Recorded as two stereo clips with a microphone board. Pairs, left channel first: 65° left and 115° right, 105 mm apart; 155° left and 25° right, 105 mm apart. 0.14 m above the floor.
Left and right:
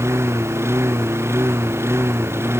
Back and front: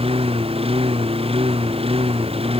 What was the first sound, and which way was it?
A lawn mower, 45° right.